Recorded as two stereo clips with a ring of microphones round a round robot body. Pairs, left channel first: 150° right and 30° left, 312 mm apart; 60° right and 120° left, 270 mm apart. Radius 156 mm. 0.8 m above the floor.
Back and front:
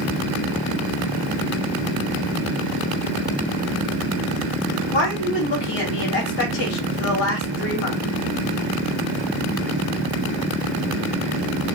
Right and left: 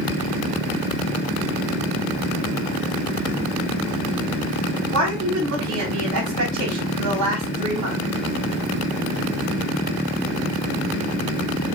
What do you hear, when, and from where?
4.9 s a woman speaking: 155° left, 2 m